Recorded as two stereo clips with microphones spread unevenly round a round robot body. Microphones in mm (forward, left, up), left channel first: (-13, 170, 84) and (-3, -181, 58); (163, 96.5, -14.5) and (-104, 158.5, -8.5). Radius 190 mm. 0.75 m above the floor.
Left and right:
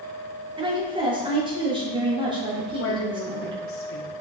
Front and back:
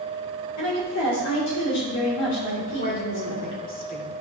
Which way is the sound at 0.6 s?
15° right.